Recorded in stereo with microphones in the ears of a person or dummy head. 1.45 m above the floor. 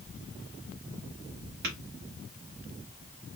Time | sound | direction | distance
1.6 | tapping | 50° right (ahead or behind) | 1.4 m